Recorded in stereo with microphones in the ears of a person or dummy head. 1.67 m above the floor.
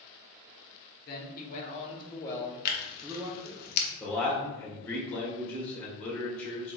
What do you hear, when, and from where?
1.1 s a man speaking: 50° left (ahead or behind), 1.3 m; by 3.6 s 35° right (ahead or behind), 0.9 m
2.6 s tearing paper: 55° left (ahead or behind), 0.9 m
4.0 s a man speaking: 10° left (ahead or behind), 1.5 m